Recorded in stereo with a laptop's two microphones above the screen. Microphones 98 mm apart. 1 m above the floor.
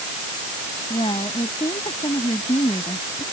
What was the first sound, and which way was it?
A woman speaking, 65° left (ahead or behind).